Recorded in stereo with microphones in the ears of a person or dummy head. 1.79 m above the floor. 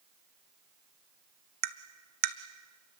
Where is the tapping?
50° right (ahead or behind), 1.0 m.